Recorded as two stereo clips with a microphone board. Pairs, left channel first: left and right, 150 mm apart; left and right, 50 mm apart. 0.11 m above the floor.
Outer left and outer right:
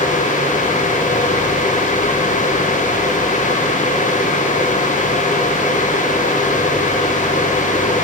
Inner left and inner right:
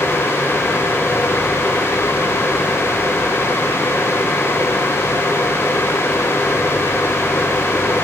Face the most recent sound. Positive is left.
No sound to turn to.